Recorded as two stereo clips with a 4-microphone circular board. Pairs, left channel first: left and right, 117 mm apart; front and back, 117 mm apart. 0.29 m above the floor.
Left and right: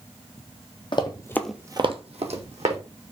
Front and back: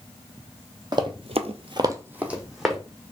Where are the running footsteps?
130° left, 0.9 m; by 2.8 s 95° right, 1.5 m.